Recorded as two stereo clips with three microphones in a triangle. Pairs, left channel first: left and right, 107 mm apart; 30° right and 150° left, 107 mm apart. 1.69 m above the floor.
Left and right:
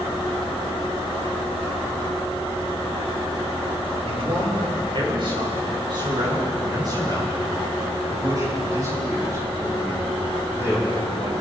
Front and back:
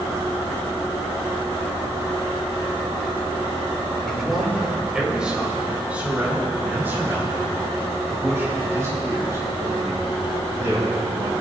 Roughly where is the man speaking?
Behind right.